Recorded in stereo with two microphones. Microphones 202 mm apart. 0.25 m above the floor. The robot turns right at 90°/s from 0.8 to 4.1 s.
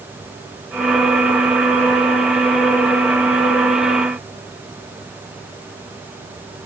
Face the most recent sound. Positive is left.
No sound to turn to.